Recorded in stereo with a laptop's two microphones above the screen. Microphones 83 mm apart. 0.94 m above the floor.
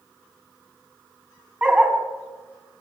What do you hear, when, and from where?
1.6 s a dog barking: 10° right (ahead or behind), 3.5 m